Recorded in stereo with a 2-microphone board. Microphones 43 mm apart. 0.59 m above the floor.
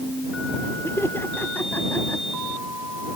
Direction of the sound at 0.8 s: 70° left (ahead or behind).